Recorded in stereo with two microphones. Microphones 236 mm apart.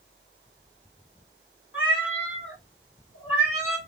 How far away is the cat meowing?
About 1.6 m.